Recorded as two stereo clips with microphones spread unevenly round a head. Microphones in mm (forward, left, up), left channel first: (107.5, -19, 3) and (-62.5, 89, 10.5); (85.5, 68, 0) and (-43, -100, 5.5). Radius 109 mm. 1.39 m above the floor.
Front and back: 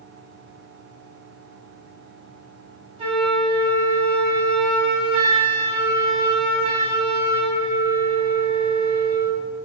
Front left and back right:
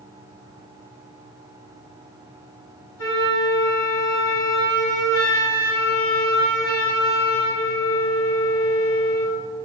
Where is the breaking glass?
I don't hear breaking glass.